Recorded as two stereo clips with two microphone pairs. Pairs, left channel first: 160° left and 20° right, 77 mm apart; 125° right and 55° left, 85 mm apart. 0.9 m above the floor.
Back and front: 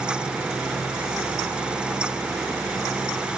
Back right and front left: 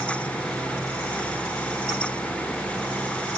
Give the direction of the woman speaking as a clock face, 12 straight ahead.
No woman speaking in this recording.